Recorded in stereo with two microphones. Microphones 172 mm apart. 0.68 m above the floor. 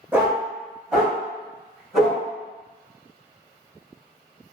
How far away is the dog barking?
About 0.7 m.